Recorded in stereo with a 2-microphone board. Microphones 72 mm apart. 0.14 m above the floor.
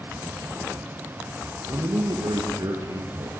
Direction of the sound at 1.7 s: 60° right (ahead or behind).